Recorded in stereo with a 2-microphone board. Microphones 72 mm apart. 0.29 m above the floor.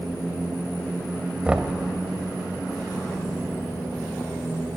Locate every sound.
1.4 s knocking: 15° right (ahead or behind), 0.7 m